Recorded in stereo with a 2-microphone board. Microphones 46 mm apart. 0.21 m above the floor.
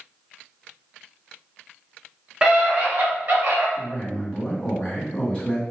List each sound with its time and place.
2.4 s a scream: 15° right (ahead or behind), 2.0 m; by 3.7 s 45° right (ahead or behind), 3.5 m
3.8 s a man speaking: 25° left (ahead or behind), 1.9 m